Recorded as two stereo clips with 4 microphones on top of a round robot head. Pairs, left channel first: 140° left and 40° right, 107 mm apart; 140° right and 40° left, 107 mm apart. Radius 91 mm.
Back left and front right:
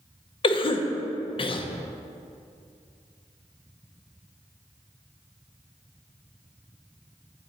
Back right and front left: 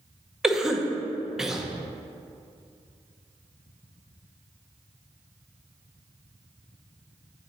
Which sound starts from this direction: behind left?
A cough, at 0.4 s.